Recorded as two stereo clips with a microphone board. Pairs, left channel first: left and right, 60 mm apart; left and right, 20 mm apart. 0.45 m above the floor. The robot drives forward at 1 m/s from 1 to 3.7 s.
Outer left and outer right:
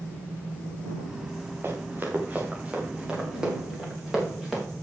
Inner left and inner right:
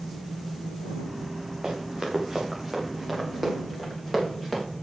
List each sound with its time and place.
1.6 s running footsteps: 35° right (ahead or behind), 4.5 m; by 4.6 s 5° right (ahead or behind), 8.5 m